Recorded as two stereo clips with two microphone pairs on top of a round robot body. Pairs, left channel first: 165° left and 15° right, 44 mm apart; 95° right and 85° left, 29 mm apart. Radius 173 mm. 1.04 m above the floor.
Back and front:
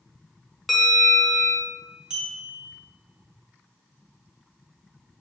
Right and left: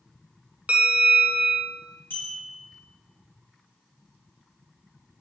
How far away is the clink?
About 2.5 m.